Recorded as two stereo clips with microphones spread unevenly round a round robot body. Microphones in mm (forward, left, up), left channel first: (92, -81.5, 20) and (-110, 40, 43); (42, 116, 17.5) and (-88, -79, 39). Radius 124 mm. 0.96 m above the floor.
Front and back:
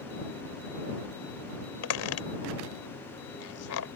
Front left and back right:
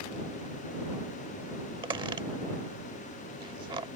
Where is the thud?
No thud in this recording.